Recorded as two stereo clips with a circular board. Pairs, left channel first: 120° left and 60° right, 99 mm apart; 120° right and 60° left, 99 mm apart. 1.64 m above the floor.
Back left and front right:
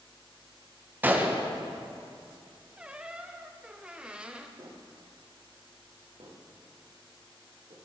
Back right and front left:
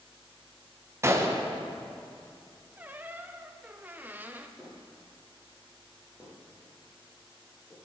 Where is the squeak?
5° left, 0.6 m.